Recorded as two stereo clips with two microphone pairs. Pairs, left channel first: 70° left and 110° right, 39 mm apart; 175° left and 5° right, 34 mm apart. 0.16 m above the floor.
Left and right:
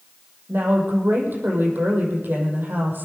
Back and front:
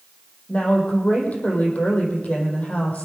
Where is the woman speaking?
140° right, 5 m.